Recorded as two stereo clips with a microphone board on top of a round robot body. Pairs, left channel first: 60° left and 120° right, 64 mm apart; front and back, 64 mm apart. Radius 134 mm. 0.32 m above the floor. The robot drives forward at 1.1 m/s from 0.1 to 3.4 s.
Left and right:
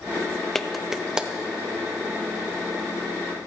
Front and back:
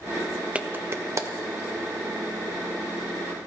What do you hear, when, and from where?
0.6 s a clap: 135° left, 0.9 m; by 1.3 s 165° left, 1.4 m